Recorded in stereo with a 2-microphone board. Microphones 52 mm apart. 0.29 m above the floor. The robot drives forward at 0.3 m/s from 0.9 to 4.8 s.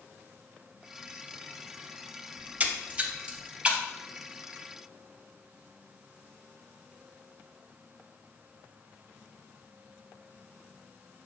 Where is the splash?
30° right (ahead or behind), 0.7 m; by 3.8 s 20° right (ahead or behind), 1.0 m.